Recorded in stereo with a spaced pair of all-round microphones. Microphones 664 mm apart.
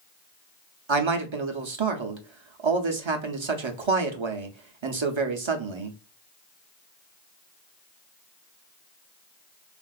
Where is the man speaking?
45° right (ahead or behind), 0.7 m.